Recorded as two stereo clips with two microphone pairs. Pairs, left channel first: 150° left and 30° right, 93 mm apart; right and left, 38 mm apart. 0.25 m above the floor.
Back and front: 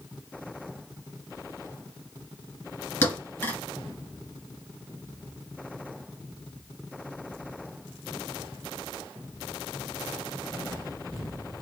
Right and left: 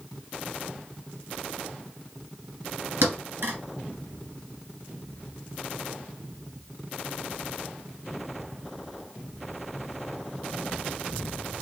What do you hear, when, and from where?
3.0 s a thud: 85° left, 1.9 m